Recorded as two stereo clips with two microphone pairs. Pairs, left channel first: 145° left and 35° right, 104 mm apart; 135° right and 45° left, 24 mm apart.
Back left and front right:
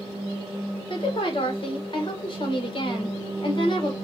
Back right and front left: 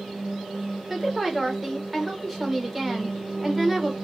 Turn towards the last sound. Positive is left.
turn(degrees=120)